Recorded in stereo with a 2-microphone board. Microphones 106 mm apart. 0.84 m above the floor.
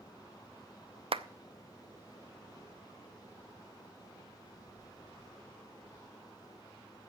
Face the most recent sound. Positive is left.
turn(degrees=-65)  # may be behind; listen again after turning